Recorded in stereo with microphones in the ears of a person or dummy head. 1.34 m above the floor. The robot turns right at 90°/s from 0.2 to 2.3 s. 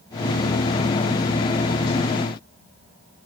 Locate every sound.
Only background noise.